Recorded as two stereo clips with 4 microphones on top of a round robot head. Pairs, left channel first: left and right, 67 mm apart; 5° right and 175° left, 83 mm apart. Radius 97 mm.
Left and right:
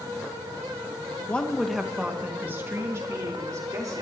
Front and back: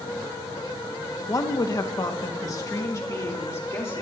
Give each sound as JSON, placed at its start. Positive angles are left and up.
{"t": 1.3, "sound": "a woman speaking", "azimuth_deg": 25, "distance_m": 1.3}